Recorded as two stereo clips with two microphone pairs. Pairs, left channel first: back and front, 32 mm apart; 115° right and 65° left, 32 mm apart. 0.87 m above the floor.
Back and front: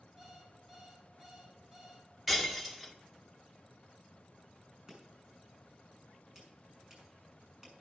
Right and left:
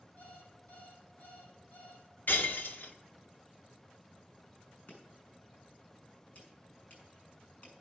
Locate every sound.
0.2 s an alarm clock: 70° right, 4.5 m
2.3 s breaking glass: 85° right, 1.5 m
4.9 s chopping: 70° right, 6.5 m